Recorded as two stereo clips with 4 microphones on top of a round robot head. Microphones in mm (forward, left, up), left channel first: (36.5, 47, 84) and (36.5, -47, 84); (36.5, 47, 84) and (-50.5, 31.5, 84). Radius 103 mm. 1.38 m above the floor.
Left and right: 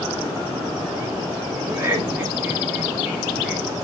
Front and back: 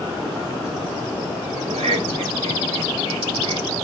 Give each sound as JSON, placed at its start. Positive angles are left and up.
{"t": 1.6, "sound": "laughter", "azimuth_deg": -160, "distance_m": 3.5}